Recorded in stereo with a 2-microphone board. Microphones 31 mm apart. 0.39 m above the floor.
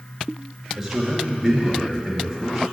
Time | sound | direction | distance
0.8 | a man speaking | 10° right (ahead or behind) | 4.5 m